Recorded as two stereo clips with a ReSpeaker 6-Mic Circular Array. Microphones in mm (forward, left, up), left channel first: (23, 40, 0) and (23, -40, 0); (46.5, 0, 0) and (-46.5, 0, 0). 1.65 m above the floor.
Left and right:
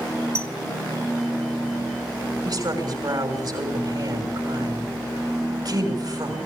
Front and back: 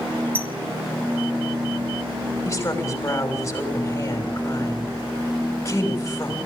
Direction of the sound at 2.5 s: 60° right.